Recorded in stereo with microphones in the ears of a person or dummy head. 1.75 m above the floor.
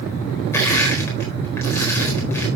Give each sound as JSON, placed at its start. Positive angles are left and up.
{"t": 0.5, "sound": "crushing", "side_deg": 5, "distance_m": 4.0}